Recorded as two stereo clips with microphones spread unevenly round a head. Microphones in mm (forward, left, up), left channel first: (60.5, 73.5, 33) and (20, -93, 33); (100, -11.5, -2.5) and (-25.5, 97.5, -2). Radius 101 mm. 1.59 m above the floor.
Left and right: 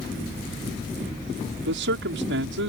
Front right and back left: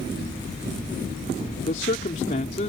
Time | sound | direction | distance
1.7 | a man speaking | 95° right | ?